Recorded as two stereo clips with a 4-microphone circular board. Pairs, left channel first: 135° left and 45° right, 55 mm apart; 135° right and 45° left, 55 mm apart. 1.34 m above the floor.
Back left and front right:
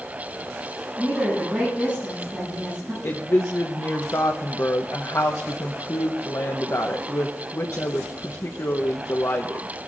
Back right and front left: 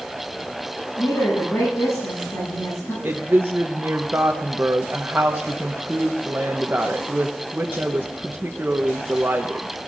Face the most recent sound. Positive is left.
turn(degrees=100)